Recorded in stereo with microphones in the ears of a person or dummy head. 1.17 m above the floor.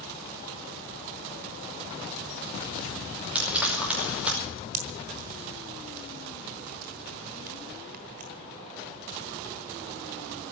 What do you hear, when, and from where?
3.4 s frying: 5° right (ahead or behind), 5 m
4.7 s a pop: 40° right (ahead or behind), 1.1 m